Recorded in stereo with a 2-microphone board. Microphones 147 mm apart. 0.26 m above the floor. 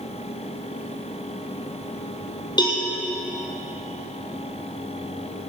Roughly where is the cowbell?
Left.